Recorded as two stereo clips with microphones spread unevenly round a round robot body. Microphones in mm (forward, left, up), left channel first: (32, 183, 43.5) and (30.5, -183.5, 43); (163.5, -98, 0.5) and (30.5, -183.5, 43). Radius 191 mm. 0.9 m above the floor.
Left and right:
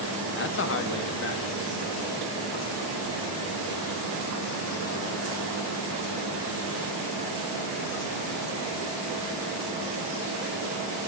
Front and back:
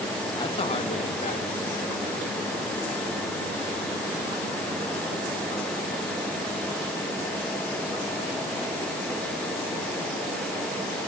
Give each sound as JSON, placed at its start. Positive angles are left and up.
{"t": 0.3, "sound": "a man speaking", "azimuth_deg": 50, "distance_m": 1.2}